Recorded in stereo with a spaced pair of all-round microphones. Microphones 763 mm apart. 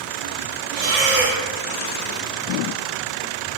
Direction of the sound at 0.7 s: 55° right (ahead or behind).